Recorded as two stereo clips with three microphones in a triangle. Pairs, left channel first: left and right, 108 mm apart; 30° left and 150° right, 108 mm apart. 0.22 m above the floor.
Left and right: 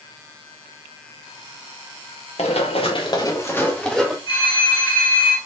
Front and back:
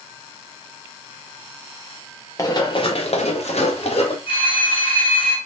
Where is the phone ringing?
55° left, 1.7 m.